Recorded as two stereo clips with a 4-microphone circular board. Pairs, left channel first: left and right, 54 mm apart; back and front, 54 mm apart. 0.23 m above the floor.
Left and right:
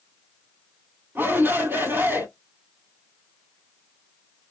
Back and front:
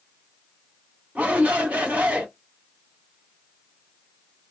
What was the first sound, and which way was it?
A shout, 55° right.